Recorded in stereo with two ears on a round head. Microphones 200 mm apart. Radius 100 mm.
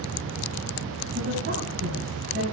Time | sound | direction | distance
1.1 | a woman speaking | 45° right (ahead or behind) | 5.5 m